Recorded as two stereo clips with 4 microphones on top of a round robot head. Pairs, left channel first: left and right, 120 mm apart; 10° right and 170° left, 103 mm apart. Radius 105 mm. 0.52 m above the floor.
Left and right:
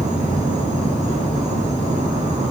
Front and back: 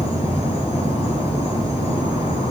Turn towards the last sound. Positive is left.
turn(degrees=-25)